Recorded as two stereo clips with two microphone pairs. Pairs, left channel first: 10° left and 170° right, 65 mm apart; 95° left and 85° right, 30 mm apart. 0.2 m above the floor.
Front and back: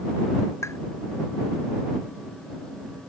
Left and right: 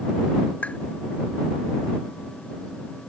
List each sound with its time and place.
0.6 s tapping: 50° left